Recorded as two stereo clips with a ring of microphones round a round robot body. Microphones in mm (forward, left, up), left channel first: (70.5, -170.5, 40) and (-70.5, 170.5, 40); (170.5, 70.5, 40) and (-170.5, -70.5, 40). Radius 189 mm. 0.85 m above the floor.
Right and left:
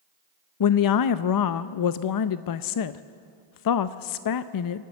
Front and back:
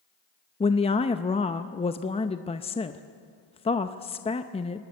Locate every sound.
0.6 s a woman speaking: 50° right, 0.6 m